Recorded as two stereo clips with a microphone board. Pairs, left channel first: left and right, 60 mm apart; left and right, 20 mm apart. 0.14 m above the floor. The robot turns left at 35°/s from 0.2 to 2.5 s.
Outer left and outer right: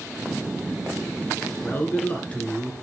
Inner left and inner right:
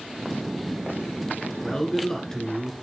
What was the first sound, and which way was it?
A man speaking, 50° left.